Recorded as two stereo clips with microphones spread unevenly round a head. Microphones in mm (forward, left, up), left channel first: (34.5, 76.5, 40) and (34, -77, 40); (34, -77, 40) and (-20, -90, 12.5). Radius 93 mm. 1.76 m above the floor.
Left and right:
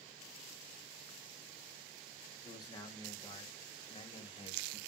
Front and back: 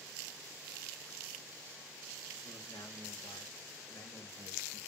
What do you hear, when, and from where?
2.4 s a man speaking: 25° left, 4 m; by 4.8 s 35° left, 3 m